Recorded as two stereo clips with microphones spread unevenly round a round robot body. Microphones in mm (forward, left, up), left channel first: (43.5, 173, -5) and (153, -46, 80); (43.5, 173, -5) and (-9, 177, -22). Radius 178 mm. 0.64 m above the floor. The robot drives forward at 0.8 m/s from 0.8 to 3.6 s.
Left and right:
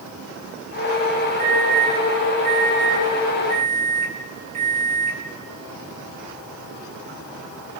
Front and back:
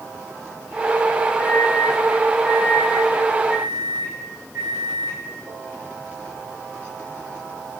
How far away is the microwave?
About 8 m.